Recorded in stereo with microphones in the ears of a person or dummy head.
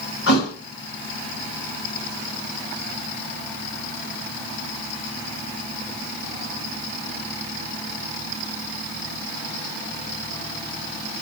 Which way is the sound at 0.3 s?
70° left (ahead or behind).